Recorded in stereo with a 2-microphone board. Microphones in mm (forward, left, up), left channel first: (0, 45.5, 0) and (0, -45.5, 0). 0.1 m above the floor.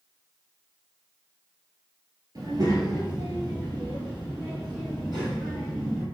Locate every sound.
2.4 s a child speaking: 50° right (ahead or behind), 1.1 m; by 6.0 s 60° right (ahead or behind), 3 m